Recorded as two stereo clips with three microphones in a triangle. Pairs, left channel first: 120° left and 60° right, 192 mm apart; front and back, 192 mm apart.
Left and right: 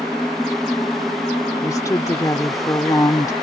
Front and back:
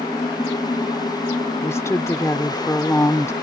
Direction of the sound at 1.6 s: 65° left.